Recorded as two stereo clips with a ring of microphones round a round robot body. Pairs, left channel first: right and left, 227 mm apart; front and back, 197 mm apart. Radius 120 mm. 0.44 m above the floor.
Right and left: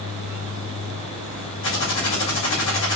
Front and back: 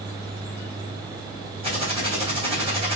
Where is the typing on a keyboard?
115° right, 2.5 m.